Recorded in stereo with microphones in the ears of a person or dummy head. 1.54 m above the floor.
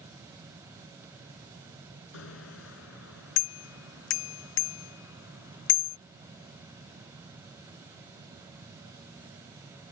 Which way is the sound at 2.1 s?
80° left.